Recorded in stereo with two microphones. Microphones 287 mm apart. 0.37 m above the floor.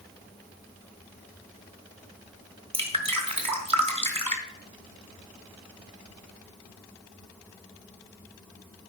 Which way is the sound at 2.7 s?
20° right (ahead or behind).